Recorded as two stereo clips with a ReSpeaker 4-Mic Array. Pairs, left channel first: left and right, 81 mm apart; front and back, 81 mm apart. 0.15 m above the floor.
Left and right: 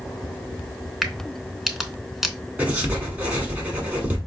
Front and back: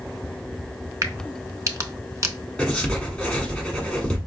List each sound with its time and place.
1.0 s a crack: 175° right, 0.6 m
2.6 s writing: 55° right, 1.1 m